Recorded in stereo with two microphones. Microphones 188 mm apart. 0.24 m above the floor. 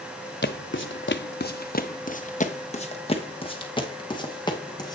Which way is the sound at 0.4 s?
75° left (ahead or behind).